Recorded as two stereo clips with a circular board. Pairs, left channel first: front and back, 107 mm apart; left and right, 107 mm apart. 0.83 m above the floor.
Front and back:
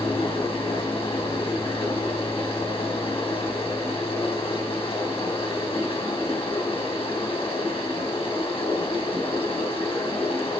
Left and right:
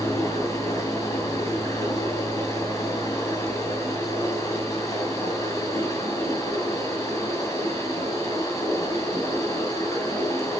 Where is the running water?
30° left, 3.5 m.